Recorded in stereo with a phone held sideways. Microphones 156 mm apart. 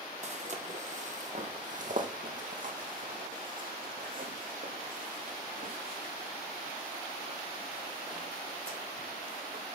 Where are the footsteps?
50° right (ahead or behind), 2 m; by 9.6 s 65° right (ahead or behind), 7 m.